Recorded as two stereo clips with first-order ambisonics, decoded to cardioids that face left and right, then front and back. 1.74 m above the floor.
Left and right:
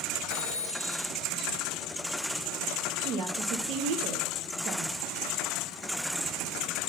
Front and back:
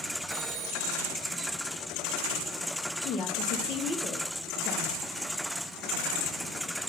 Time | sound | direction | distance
0.3 | a phone ringing | 115° right | 2.5 m
3.0 | a woman speaking | 60° right | 1.2 m